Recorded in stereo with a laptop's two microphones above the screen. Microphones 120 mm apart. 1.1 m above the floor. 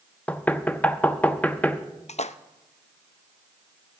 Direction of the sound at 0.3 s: 15° left (ahead or behind).